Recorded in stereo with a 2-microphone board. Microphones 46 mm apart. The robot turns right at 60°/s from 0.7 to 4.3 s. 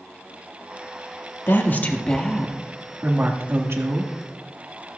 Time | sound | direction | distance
1.5 | a woman speaking | 120° left | 1.5 m